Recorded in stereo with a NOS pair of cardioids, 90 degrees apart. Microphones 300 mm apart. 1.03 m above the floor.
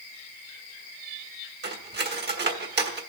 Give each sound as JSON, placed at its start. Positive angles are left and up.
{"t": 1.6, "sound": "cutlery clinking", "azimuth_deg": -35, "distance_m": 1.5}